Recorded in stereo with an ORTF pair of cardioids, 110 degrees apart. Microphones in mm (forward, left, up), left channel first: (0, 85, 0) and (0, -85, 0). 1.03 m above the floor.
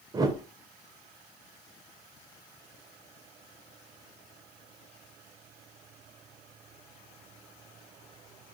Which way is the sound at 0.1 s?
25° right.